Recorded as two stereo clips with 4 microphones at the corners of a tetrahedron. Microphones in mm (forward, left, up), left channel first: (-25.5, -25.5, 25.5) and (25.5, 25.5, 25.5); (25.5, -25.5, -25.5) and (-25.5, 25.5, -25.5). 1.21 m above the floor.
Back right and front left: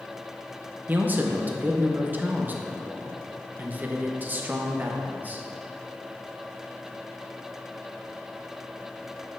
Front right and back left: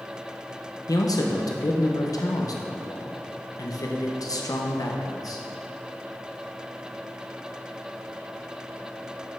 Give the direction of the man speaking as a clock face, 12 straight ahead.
1 o'clock.